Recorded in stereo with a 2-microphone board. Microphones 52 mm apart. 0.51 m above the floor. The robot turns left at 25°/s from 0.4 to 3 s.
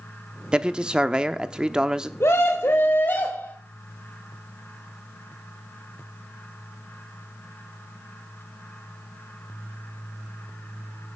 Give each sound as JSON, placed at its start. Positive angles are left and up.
{"t": 0.5, "sound": "a man speaking", "side_deg": -20, "distance_m": 0.6}
{"t": 2.2, "sound": "a scream", "side_deg": 60, "distance_m": 1.8}